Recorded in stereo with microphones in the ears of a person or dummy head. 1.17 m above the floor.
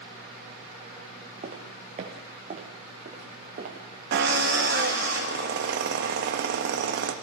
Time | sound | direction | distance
1.4 | footsteps | 40° right (ahead or behind) | 3.5 m
4.1 | a drill | 55° right (ahead or behind) | 1.5 m